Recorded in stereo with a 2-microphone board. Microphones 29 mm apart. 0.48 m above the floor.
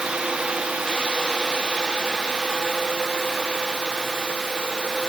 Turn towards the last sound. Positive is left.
No sound to turn to.